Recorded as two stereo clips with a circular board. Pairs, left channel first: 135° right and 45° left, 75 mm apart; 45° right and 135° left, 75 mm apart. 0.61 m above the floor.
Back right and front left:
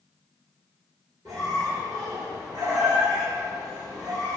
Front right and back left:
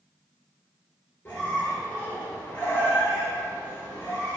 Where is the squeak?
15° left, 1.1 m.